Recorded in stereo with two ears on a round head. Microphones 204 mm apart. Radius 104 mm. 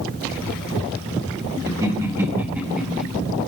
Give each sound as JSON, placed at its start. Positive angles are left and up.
{"t": 1.7, "sound": "laughter", "side_deg": -15, "distance_m": 3.0}